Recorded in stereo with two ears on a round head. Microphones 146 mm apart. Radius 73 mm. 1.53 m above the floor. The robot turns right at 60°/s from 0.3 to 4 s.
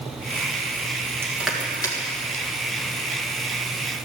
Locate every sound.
1.2 s crushing: 15° right (ahead or behind), 1.8 m; by 2.0 s 30° left (ahead or behind), 1.8 m